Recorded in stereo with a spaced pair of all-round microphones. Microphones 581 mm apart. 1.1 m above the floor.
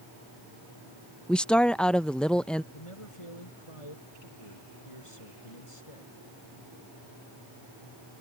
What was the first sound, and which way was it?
A woman speaking, centre (ahead or behind).